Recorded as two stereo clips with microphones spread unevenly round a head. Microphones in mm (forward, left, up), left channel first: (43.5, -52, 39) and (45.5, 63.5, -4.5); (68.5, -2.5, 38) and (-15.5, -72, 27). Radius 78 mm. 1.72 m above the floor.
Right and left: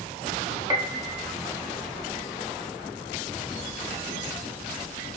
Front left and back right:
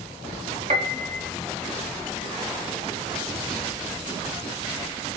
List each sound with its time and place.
0.7 s a piano: 170° left, 0.8 m